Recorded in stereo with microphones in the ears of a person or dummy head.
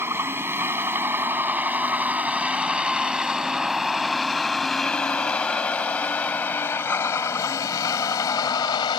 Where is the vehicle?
15° right (ahead or behind); by 9.0 s 25° left (ahead or behind).